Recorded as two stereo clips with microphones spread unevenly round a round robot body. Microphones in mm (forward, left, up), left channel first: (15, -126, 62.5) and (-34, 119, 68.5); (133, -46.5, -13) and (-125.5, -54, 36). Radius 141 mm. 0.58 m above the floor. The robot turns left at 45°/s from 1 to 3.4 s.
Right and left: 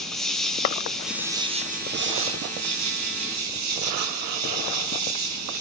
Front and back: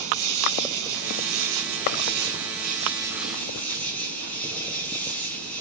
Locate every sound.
0.0 s an insect: 165° right, 2.5 m; by 5.6 s 85° left, 2.5 m